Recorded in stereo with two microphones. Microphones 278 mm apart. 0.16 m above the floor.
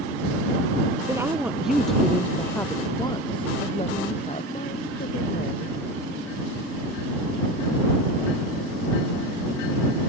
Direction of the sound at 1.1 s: 10° right (ahead or behind).